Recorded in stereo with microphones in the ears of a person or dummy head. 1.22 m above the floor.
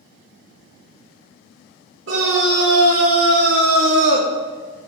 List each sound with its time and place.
2.1 s a scream: 80° right, 3 m; by 4.3 s 55° right (ahead or behind), 0.9 m